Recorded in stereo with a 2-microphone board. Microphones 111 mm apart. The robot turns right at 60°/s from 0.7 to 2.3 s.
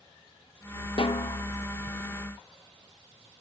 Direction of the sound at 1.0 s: 55° left (ahead or behind).